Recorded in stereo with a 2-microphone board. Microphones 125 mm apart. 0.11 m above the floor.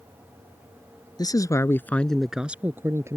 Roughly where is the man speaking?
Left.